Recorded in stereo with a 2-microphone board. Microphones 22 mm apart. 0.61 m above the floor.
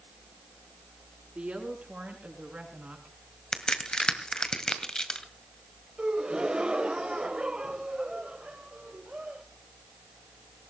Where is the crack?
35° left (ahead or behind), 1.8 m.